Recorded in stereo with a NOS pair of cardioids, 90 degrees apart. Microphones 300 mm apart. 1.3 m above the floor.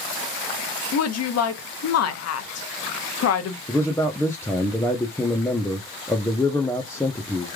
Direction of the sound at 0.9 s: 55° left.